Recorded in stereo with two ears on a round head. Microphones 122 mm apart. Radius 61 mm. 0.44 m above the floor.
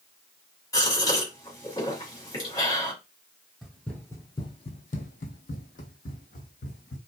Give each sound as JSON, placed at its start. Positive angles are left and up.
{"t": 0.7, "sound": "a gasp", "side_deg": 25, "distance_m": 1.7}
{"t": 3.6, "sound": "running footsteps", "side_deg": 0, "distance_m": 0.7}